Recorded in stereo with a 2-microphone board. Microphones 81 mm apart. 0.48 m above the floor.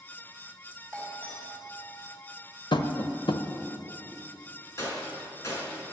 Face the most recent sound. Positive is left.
turn(degrees=40)  # may be behind; listen again after turning